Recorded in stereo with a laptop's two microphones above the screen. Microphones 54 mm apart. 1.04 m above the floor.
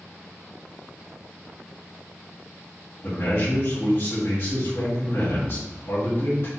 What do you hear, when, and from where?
3.0 s a man speaking: 55° left (ahead or behind), 1.6 m